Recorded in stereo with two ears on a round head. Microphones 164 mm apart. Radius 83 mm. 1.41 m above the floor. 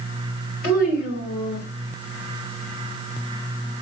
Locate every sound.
0.6 s a child speaking: 55° left (ahead or behind), 3.5 m; by 1.7 s 60° left (ahead or behind), 2.5 m